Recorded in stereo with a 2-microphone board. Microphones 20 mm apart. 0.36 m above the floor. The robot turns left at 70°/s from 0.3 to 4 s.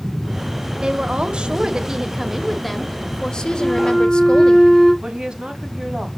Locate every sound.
0.8 s a woman speaking: 60° right, 1.0 m; by 4.6 s 75° left, 1.0 m
3.6 s a flute: 20° left (ahead or behind), 4 m; by 4.9 s 10° right (ahead or behind), 4 m
5.0 s a woman speaking: 35° right (ahead or behind), 1.7 m